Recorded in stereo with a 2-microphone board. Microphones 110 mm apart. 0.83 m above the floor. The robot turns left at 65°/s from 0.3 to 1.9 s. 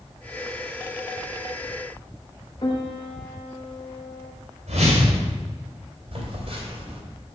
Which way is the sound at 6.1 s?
60° right (ahead or behind).